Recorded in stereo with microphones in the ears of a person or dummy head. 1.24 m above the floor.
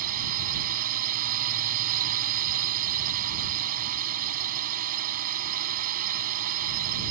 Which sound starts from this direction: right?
A drone, at 0.0 s.